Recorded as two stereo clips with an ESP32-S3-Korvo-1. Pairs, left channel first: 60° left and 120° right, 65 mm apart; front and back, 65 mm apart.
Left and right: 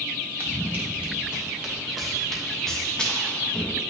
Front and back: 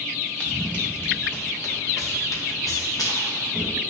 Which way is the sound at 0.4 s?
70° right.